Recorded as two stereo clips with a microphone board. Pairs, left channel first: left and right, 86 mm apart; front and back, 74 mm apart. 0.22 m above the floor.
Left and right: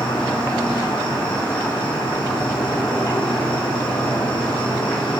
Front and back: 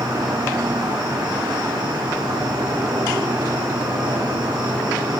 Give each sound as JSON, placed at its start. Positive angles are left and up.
{"t": 0.0, "sound": "an insect", "azimuth_deg": 170, "distance_m": 7.0}